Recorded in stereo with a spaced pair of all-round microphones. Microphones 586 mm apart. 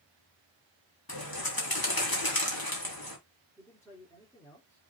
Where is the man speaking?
5° left (ahead or behind), 4.5 m.